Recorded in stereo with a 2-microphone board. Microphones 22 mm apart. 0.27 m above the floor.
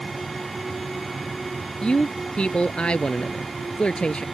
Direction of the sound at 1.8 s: 55° left (ahead or behind).